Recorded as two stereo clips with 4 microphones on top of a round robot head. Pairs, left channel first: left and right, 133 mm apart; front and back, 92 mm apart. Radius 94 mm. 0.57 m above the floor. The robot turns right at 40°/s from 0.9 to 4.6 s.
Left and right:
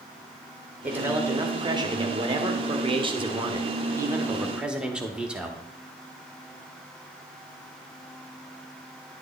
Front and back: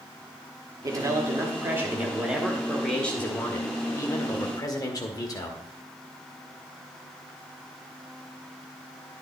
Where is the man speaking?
160° right, 1.5 m; by 5.6 s 10° right, 1.5 m.